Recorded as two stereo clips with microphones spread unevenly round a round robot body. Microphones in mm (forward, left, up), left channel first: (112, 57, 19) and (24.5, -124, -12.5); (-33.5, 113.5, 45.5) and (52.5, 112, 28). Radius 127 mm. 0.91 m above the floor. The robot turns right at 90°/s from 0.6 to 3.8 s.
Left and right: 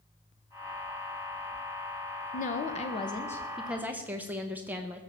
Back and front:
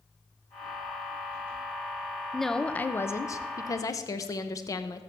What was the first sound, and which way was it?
A woman speaking, 60° left.